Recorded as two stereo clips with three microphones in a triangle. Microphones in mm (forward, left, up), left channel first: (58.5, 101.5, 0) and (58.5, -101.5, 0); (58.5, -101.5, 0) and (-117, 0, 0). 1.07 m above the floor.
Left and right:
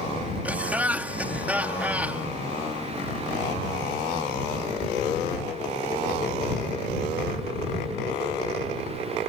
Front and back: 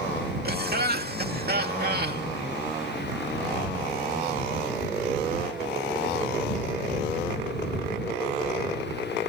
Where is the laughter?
170° right.